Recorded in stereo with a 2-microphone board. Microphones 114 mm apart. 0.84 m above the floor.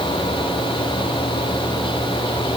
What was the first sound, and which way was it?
Only background noise.